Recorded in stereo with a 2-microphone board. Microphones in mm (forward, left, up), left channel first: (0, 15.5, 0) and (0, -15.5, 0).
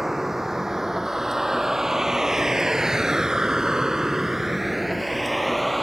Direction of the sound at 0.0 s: 10° right (ahead or behind).